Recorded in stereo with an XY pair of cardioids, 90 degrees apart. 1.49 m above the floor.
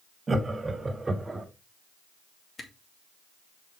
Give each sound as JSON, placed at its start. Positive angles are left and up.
{"t": 0.3, "sound": "laughter", "azimuth_deg": -30, "distance_m": 3.0}
{"t": 2.6, "sound": "a camera shutter", "azimuth_deg": 35, "distance_m": 2.5}